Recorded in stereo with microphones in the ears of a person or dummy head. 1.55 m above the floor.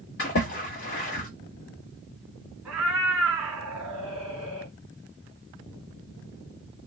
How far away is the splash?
About 1.7 m.